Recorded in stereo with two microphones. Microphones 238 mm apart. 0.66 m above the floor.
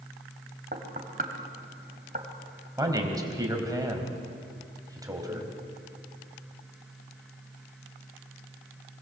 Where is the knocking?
40° right (ahead or behind), 2.5 m.